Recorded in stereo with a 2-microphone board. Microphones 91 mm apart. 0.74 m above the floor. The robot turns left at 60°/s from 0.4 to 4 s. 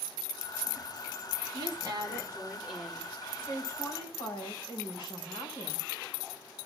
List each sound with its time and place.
1.5 s a woman speaking: 100° right, 2.5 m; by 3.1 s 165° left, 2.5 m
3.4 s a woman speaking: 160° left, 5 m; by 5.9 s 125° left, 5 m